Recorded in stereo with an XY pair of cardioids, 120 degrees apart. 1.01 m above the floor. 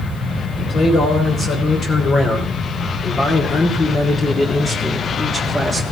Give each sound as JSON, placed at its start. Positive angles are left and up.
{"t": 0.6, "sound": "a man speaking", "azimuth_deg": 55, "distance_m": 4.0}